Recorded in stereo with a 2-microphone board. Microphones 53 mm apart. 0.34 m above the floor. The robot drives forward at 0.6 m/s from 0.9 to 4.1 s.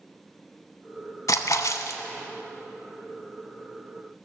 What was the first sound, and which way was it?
A splash, 80° left.